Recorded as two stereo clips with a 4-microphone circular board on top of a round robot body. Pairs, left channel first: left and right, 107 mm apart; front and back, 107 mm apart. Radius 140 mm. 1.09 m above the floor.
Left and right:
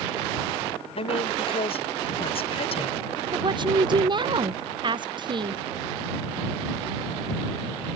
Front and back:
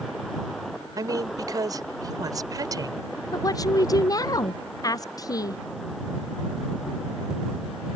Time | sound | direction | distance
1.0 | a woman speaking | 120° left | ?
3.3 | a woman speaking | 55° right | ?